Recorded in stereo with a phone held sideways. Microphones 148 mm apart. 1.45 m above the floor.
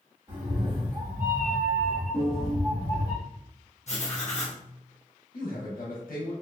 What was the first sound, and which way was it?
A cat meowing, 40° right (ahead or behind).